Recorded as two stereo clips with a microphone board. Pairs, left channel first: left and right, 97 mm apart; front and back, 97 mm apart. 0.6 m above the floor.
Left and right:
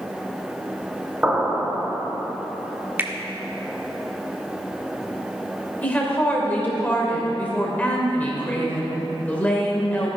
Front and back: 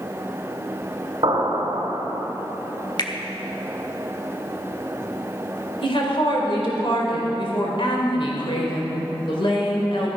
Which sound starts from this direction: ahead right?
A finger snap, at 3.0 s.